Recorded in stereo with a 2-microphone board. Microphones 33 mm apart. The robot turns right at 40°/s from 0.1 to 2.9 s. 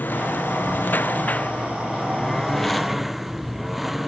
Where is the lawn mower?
75° left; by 4.1 s 175° right.